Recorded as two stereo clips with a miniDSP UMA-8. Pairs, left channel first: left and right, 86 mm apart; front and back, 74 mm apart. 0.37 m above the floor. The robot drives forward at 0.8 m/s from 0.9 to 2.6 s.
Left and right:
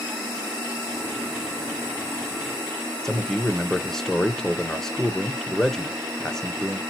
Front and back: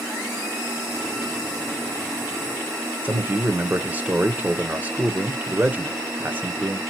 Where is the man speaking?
165° left, 0.9 m.